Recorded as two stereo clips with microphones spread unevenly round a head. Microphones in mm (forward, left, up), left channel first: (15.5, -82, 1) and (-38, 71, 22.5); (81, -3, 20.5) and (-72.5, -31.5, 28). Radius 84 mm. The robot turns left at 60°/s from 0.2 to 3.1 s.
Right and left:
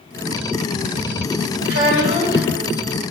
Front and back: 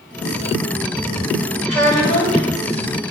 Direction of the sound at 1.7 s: 100° left.